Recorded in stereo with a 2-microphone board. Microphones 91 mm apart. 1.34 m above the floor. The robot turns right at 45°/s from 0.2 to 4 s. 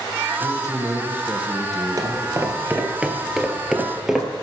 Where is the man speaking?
55° right, 0.9 m; by 2.8 s 50° left, 0.9 m.